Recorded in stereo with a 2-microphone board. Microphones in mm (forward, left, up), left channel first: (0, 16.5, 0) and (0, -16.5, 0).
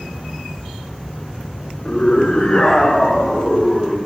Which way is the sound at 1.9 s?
45° left (ahead or behind).